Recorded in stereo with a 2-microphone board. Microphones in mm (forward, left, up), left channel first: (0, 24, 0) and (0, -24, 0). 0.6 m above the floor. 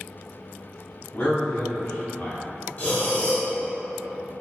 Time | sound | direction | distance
1.1 | a man speaking | 45° left (ahead or behind) | 1.2 m
2.8 | breathing | 30° left (ahead or behind) | 1.2 m